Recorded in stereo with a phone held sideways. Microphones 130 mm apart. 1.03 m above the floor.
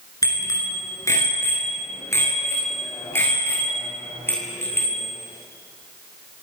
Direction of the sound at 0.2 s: 25° left (ahead or behind).